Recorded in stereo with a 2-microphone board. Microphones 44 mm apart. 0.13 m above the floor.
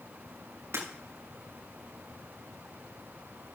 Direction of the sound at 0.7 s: 85° right.